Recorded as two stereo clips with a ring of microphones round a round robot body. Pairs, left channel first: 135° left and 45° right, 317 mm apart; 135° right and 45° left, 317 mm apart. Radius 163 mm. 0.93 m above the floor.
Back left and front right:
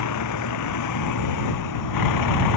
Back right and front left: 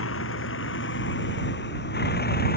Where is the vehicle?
175° left; by 2.6 s 160° left.